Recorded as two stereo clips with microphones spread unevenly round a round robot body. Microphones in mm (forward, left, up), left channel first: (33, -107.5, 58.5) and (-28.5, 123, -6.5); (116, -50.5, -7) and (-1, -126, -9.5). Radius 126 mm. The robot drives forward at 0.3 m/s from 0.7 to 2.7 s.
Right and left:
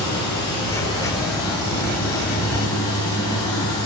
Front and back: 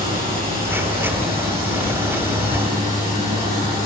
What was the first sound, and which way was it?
Running water, 150° right.